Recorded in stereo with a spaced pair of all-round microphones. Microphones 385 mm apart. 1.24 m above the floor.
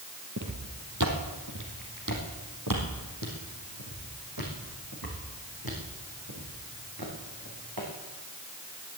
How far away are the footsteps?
About 2.5 m.